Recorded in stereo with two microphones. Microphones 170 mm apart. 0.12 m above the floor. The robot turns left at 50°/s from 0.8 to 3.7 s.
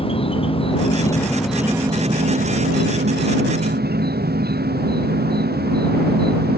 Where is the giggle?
No giggle in this recording.